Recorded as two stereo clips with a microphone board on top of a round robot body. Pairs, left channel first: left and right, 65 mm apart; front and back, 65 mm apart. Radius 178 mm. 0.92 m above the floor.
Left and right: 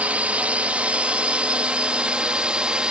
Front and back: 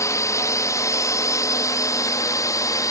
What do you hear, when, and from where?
0.0 s a drone: 25° right; by 2.9 s 15° right